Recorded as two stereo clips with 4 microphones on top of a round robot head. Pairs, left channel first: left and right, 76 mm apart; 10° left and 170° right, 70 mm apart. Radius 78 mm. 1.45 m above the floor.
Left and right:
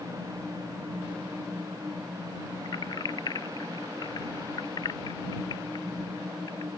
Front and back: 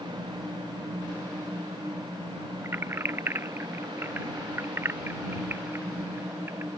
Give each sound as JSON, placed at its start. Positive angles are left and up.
{"t": 2.6, "sound": "keys jangling", "azimuth_deg": 130}